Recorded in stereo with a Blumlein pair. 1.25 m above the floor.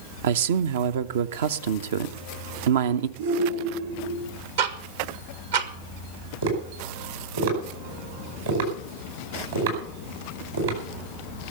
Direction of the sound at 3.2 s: 60° right.